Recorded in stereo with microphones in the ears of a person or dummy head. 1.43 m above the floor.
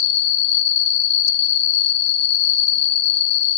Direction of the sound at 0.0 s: 40° left (ahead or behind).